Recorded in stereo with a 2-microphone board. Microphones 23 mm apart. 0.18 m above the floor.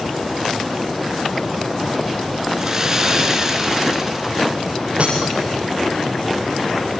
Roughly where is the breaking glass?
Right.